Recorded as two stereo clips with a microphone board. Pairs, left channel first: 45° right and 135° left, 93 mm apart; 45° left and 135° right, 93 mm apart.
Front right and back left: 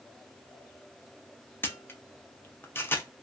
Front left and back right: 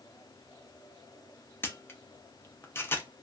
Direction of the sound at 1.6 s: Straight ahead.